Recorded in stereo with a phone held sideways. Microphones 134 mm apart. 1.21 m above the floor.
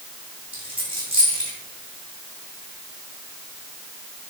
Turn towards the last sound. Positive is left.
turn(degrees=-40)  # may be behind; listen again after turning